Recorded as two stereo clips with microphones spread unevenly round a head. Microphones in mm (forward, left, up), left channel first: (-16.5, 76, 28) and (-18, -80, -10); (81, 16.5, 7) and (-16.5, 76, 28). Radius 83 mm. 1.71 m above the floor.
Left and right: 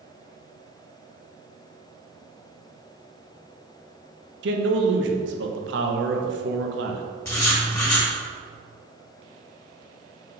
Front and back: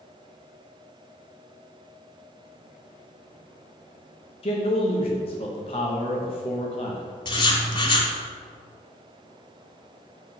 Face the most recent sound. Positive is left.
turn(degrees=20)